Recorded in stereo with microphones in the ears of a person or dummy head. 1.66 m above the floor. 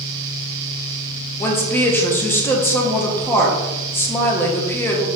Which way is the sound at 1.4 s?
15° left (ahead or behind).